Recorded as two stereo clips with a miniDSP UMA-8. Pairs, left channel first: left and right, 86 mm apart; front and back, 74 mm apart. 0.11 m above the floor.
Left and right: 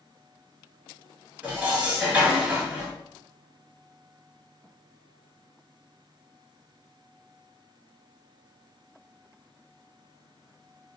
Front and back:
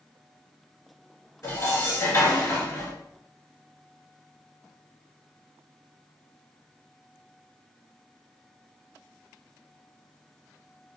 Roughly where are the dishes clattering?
Ahead right.